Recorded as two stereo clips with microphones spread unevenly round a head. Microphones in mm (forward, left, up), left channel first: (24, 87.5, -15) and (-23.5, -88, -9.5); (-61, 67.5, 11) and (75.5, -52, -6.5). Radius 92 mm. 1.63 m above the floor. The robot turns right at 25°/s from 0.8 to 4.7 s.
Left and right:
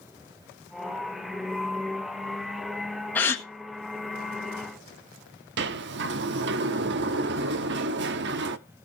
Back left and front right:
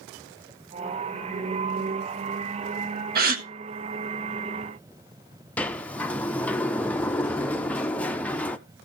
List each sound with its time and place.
3.1 s a gasp: 5° right, 1.4 m; by 3.5 s straight ahead, 1.4 m
5.6 s a sliding door: 140° right, 0.6 m